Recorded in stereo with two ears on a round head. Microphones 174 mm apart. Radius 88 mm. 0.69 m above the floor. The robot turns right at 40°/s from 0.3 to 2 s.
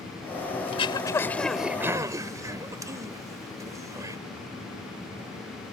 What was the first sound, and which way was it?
Throat clearing, 35° left (ahead or behind).